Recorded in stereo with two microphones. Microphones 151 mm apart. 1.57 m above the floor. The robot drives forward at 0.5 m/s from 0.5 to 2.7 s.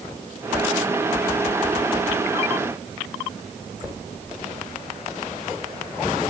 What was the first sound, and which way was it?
Only background noise.